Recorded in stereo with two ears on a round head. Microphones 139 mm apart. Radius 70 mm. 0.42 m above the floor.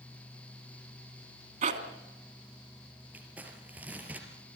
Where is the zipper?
55° right (ahead or behind), 2.5 m.